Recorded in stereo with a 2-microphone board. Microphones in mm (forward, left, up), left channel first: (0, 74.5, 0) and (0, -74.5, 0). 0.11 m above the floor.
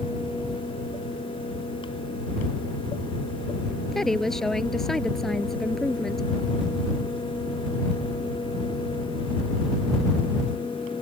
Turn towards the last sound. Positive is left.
turn(degrees=5)  # may be behind; listen again after turning